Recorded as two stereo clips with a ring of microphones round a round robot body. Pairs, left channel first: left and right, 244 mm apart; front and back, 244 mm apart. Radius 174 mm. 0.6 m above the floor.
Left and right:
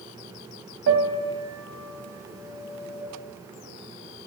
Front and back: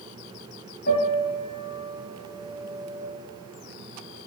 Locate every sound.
0.9 s a piano: 65° right, 2 m